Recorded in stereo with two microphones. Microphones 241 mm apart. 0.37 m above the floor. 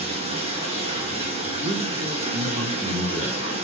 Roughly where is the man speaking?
Right.